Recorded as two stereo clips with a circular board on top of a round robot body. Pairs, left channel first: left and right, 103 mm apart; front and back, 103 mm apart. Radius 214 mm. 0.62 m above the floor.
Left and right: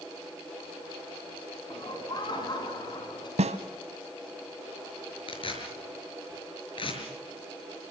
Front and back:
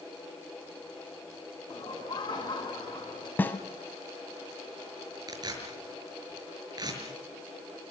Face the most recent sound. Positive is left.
turn(degrees=130)